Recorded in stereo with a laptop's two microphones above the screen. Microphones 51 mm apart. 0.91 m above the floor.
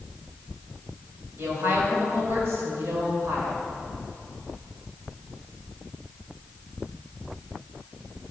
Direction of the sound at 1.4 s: 50° right (ahead or behind).